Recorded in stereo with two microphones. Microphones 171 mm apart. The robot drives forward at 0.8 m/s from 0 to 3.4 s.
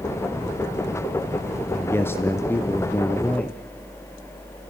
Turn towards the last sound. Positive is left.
turn(degrees=10)  # may be behind; listen again after turning